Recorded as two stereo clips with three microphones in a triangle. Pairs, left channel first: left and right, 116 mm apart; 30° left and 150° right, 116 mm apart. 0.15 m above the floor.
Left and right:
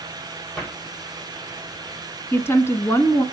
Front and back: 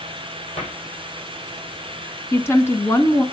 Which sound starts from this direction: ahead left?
A woman speaking, at 2.3 s.